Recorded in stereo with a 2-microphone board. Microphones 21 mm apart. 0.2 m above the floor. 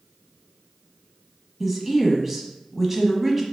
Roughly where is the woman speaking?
Centre.